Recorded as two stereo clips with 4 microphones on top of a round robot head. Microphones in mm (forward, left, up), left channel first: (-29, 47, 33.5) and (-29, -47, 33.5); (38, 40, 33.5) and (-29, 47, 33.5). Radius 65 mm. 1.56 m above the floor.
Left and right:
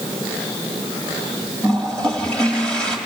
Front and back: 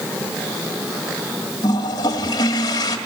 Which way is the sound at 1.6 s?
10° left.